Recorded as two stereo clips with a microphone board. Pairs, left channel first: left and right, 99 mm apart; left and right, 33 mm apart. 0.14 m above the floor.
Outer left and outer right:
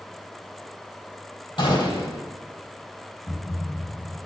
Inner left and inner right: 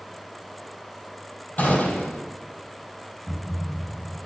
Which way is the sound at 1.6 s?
50° left (ahead or behind).